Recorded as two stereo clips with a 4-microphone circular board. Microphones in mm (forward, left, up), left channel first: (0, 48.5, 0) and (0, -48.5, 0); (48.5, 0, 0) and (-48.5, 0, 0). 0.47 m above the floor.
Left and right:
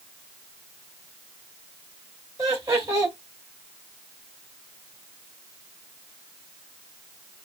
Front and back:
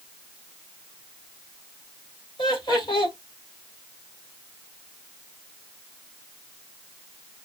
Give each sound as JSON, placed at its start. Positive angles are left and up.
{"t": 2.4, "sound": "laughter", "azimuth_deg": -35, "distance_m": 3.0}